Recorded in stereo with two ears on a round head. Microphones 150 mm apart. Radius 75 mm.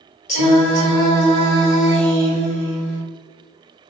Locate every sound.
0.3 s singing: 45° left (ahead or behind), 1.2 m